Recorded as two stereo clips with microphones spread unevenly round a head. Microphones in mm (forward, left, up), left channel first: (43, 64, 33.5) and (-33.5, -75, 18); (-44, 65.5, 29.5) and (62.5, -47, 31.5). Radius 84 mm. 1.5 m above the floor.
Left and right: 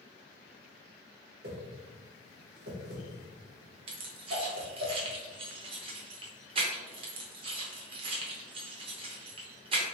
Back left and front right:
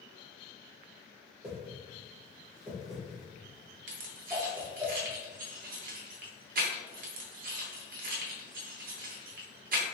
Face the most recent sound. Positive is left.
turn(degrees=-65)